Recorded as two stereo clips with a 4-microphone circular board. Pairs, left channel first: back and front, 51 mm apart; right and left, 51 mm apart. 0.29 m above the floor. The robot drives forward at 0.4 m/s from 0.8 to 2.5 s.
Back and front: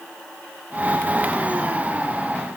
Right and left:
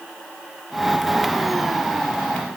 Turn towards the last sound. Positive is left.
No sound to turn to.